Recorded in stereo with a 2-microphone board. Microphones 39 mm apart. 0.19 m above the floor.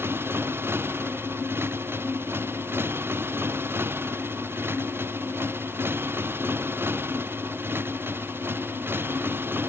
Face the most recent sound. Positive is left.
turn(degrees=-75)  # may be behind; listen again after turning